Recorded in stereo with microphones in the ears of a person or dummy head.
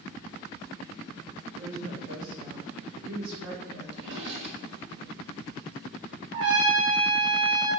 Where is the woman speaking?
65° right (ahead or behind), 1.5 m; by 3.8 s 75° right (ahead or behind), 3.5 m.